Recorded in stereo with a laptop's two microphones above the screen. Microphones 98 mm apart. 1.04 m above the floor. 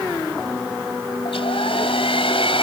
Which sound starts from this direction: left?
A hair dryer, at 1.2 s.